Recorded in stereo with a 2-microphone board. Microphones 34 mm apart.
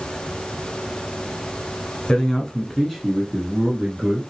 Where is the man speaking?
25° left (ahead or behind), 1.2 m; by 4.2 s 15° right (ahead or behind), 1.8 m.